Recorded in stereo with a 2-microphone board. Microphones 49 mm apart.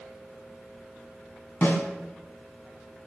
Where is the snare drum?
60° left (ahead or behind), 2.5 m.